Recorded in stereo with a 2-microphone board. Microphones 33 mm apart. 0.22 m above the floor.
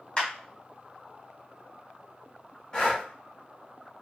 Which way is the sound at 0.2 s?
25° left (ahead or behind).